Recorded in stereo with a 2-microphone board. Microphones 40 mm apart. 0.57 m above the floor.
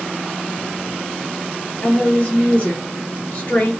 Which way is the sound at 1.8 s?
40° left (ahead or behind).